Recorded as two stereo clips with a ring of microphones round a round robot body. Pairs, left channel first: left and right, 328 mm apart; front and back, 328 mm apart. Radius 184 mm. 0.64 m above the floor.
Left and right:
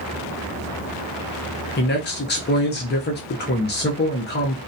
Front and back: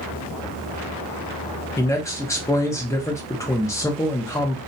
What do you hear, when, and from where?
1.8 s a man speaking: 75° left, 0.7 m